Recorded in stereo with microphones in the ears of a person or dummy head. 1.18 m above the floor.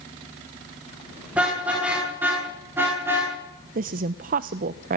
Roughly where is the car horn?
Centre.